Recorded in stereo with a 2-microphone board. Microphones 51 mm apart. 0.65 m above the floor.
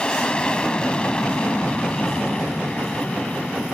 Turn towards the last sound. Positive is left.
turn(degrees=20)  # may be behind; listen again after turning